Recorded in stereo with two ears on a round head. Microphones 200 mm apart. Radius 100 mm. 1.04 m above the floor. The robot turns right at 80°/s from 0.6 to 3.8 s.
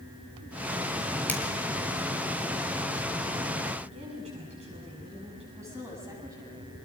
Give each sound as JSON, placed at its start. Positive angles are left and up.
{"t": 1.3, "sound": "a finger snap", "side_deg": 10, "distance_m": 3.0}
{"t": 3.8, "sound": "a woman speaking", "side_deg": -30, "distance_m": 9.0}
{"t": 5.5, "sound": "a woman speaking", "side_deg": -15, "distance_m": 8.5}